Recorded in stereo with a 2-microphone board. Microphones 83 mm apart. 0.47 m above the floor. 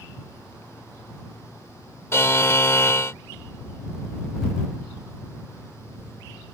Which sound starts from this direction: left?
A buzzer, at 2.1 s.